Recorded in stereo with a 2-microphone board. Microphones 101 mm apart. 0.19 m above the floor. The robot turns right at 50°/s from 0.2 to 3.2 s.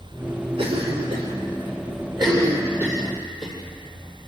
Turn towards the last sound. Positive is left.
turn(degrees=0)  # may be behind; listen again after turning